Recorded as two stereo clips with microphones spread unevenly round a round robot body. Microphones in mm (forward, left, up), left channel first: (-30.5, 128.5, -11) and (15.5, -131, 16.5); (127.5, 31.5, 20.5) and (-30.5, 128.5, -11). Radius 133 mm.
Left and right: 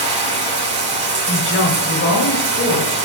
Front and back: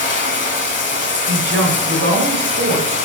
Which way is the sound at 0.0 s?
15° right.